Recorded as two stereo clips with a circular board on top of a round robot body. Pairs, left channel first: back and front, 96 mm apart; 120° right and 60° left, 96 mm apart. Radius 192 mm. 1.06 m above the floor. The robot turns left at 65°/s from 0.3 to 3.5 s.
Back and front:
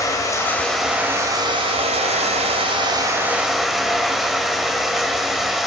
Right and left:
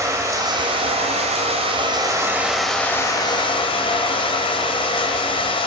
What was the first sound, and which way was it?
Running water, 120° left.